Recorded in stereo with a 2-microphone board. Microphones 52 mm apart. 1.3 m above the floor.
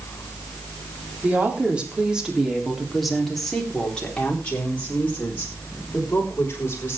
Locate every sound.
1.2 s a woman speaking: 30° right (ahead or behind), 3.5 m; by 7.0 s 40° left (ahead or behind), 6 m